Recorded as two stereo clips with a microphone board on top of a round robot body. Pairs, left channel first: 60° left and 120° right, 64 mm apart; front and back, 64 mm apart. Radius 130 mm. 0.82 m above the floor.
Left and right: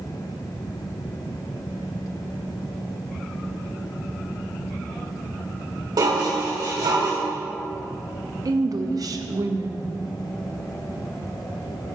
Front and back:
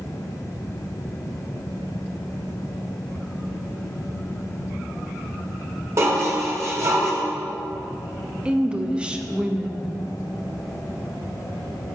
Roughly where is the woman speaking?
Right.